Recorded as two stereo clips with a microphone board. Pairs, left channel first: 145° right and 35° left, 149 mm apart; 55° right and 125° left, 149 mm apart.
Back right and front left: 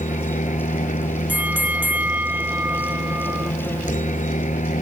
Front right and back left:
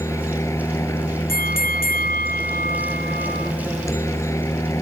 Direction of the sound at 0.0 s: 125° right.